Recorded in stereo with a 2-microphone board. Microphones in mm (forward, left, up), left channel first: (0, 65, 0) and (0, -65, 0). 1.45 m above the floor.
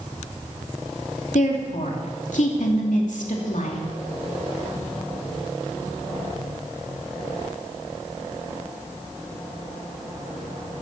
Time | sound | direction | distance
1.3 | a woman speaking | 70° left (ahead or behind) | 2.5 m